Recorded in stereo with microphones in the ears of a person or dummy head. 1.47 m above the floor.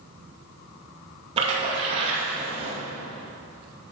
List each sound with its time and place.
1.4 s a splash: 35° right (ahead or behind), 2 m